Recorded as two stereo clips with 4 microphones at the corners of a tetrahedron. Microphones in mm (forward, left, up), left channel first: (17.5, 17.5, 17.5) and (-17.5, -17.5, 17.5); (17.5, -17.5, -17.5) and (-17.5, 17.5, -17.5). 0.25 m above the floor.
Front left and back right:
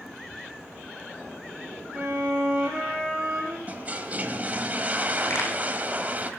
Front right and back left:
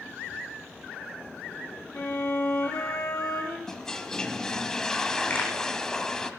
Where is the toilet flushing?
115° right, 1.4 m.